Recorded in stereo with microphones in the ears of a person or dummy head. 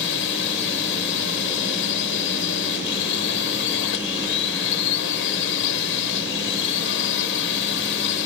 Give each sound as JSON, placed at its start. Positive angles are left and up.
{"t": 0.0, "sound": "a drone", "side_deg": 65}